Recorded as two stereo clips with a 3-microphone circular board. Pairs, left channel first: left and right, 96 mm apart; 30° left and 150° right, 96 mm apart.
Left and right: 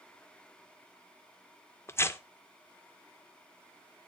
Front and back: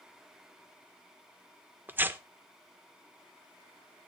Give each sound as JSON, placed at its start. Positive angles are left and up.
{"t": 1.9, "sound": "tearing paper", "azimuth_deg": 145, "distance_m": 0.5}